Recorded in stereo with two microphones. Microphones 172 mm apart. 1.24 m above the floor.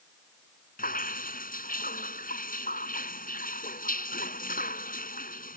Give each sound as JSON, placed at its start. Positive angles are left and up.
{"t": 0.8, "sound": "dripping", "side_deg": 55}